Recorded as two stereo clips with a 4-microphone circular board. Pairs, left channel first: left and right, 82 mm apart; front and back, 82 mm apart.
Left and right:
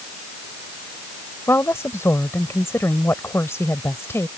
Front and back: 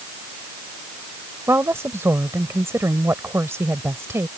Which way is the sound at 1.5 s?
135° left.